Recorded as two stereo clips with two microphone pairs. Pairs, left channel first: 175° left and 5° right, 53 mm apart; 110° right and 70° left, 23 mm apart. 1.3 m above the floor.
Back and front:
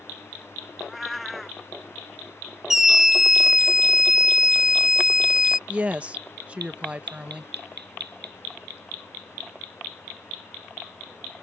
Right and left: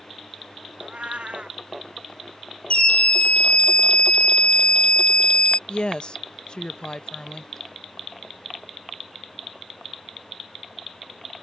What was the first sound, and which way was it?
A cat meowing, 85° left.